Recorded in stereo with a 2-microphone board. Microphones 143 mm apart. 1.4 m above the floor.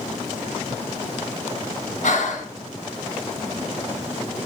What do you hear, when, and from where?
2.0 s breathing: 65° left (ahead or behind), 1.2 m